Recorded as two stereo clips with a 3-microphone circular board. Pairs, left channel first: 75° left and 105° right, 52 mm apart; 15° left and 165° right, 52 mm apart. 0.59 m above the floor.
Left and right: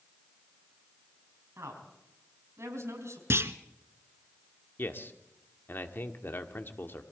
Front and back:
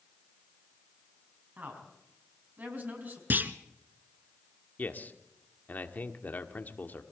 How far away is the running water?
I don't hear running water.